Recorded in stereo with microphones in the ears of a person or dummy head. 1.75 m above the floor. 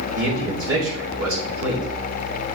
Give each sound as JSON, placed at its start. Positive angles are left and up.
{"t": 0.1, "sound": "a man speaking", "side_deg": -80, "distance_m": 2.5}